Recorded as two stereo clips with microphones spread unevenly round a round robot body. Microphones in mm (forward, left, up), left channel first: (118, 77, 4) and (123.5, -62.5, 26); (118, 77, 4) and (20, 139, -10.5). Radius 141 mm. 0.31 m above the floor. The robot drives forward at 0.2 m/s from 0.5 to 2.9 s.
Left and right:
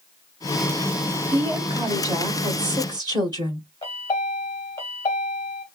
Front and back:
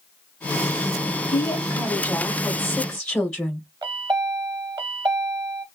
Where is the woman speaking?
70° right, 0.8 m; by 3.7 s 130° right, 0.9 m.